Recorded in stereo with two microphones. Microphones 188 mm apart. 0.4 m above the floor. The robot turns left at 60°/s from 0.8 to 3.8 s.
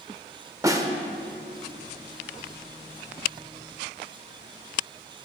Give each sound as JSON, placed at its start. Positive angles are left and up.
{"t": 0.6, "sound": "a snare drum", "side_deg": -20, "distance_m": 0.5}